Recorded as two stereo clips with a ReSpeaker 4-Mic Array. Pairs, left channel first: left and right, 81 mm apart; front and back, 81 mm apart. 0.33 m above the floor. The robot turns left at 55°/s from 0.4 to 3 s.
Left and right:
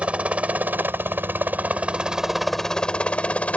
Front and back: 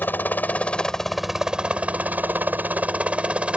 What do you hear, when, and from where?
0.0 s a helicopter: 35° right; by 3.6 s 130° left